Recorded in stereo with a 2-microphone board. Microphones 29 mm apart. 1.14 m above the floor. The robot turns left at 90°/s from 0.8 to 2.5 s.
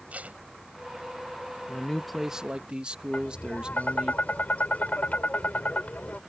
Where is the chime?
I don't hear a chime.